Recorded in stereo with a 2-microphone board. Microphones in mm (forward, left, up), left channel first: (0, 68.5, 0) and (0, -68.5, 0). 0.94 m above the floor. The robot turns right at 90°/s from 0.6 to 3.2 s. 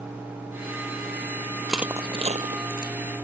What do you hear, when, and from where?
1.7 s crushing: 5° left (ahead or behind); by 2.9 s 70° right (ahead or behind)